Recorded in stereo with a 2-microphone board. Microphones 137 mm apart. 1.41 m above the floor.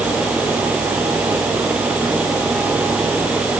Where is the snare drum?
I don't hear a snare drum.